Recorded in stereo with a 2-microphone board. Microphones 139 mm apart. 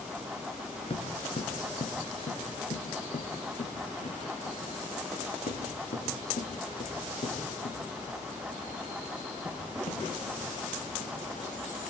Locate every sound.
0.9 s footsteps: 45° left (ahead or behind), 2 m; by 11.1 s 80° left, 8 m